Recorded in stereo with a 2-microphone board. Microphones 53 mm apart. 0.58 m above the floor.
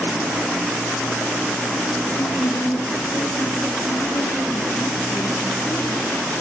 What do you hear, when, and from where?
2.1 s a woman speaking: 70° left (ahead or behind), 8 m; by 6.1 s 80° left, 8.5 m